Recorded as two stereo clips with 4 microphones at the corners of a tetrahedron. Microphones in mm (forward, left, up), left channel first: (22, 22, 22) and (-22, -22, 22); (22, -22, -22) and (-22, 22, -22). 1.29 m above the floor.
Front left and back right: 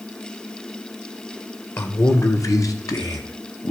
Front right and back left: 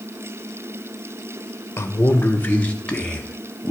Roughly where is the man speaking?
Ahead.